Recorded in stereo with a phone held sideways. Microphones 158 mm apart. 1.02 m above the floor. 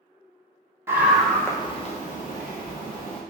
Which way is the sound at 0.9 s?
15° right (ahead or behind).